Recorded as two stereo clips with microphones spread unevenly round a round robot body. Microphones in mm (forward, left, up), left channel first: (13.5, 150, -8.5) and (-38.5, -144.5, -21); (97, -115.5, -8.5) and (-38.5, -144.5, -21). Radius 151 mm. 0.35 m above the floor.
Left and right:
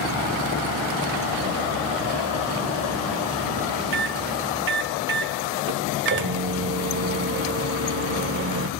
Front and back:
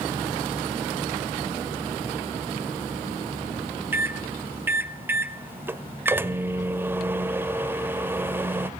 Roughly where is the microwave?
Right.